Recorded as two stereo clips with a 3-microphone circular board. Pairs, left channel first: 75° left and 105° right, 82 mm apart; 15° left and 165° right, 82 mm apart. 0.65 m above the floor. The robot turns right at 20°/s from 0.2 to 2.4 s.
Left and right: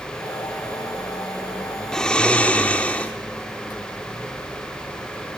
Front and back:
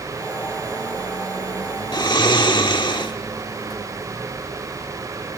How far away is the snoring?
About 1.1 m.